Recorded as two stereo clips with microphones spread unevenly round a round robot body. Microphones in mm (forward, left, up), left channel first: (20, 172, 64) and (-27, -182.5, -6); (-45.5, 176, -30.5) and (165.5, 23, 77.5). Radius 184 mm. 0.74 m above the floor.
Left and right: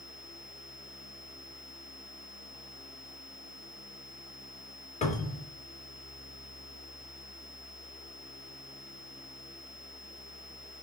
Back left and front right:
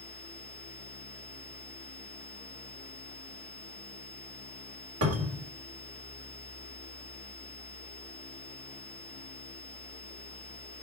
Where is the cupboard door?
5° left, 2 m.